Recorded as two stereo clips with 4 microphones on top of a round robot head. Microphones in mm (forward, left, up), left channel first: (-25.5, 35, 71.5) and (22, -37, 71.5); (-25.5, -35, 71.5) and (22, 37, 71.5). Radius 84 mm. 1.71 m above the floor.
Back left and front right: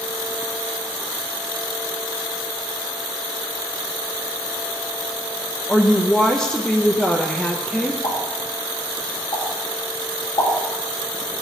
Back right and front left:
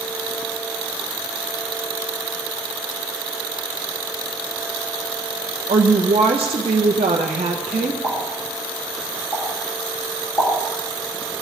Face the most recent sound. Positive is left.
turn(degrees=170)